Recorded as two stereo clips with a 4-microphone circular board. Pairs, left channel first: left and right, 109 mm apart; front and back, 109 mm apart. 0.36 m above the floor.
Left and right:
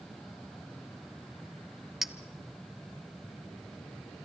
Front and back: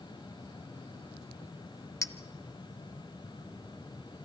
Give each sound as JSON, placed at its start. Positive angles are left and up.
{"t": 2.0, "sound": "a clink", "azimuth_deg": -5, "distance_m": 0.7}